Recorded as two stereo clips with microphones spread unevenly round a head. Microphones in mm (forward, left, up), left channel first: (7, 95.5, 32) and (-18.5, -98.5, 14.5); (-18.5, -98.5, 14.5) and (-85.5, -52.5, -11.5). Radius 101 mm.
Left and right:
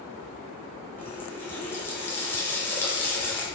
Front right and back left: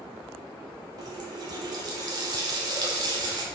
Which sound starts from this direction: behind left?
A running tap, at 1.0 s.